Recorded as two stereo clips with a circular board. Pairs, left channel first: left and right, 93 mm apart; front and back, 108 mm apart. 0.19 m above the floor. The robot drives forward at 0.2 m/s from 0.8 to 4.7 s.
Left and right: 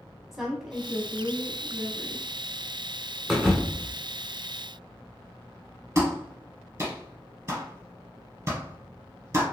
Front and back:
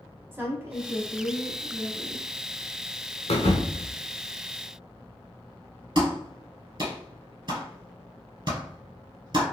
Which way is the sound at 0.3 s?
170° right.